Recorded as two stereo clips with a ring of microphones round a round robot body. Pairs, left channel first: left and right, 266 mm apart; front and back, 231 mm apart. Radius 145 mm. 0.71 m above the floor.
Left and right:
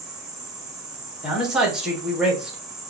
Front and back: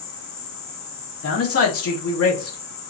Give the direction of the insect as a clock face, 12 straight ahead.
12 o'clock.